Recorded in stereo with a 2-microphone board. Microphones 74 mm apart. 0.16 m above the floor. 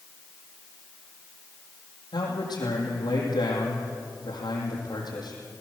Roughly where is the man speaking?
Left.